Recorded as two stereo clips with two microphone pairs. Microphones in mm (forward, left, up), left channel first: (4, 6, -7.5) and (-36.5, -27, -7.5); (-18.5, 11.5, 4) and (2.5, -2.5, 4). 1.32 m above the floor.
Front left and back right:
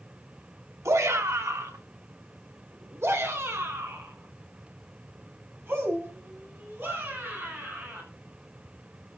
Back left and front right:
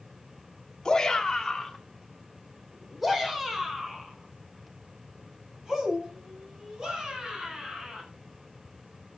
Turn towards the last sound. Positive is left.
turn(degrees=-95)